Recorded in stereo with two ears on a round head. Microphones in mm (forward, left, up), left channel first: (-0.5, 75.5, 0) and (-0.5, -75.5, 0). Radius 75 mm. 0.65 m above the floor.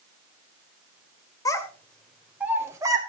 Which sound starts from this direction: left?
A child speaking, at 1.4 s.